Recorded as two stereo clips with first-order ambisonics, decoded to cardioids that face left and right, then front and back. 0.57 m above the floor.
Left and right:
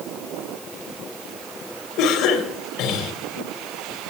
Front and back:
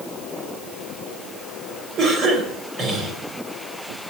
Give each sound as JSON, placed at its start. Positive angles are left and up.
{"t": 2.0, "sound": "a cough", "azimuth_deg": 120, "distance_m": 2.5}